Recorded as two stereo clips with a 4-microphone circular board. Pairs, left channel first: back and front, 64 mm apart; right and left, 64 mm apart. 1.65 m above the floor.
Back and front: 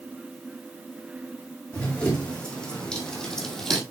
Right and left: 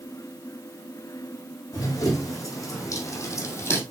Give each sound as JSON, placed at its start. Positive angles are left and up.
{"t": 1.7, "sound": "running footsteps", "azimuth_deg": -110, "distance_m": 4.0}